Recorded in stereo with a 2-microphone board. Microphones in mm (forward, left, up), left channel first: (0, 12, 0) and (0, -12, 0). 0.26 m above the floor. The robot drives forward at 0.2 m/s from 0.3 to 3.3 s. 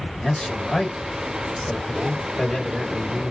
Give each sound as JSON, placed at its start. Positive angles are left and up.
{"t": 0.2, "sound": "a man speaking", "side_deg": 35, "distance_m": 1.5}